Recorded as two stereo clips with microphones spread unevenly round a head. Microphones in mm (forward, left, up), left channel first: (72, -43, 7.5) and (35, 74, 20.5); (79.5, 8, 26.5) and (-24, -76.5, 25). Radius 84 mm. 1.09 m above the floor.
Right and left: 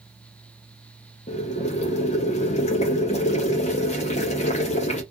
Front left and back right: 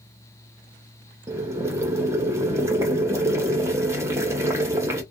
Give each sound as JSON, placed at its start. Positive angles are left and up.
{"t": 1.3, "sound": "boiling", "azimuth_deg": -75, "distance_m": 0.7}